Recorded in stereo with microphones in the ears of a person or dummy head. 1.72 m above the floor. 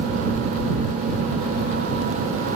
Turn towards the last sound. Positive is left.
No sound to turn to.